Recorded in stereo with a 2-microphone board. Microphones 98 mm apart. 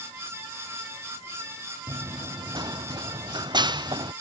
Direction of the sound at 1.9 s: 45° right (ahead or behind).